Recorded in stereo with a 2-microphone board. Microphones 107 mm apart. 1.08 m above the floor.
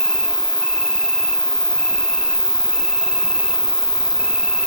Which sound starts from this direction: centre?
An insect, at 0.0 s.